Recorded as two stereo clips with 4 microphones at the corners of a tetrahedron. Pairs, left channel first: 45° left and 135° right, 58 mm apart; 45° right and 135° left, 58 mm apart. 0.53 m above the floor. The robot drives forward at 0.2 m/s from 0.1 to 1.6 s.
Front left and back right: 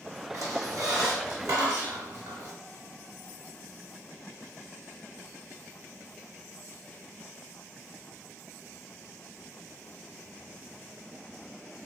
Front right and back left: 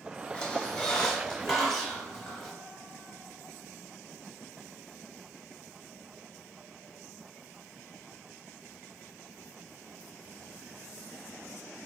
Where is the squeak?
115° right, 0.7 m; by 2.5 s 130° right, 0.8 m.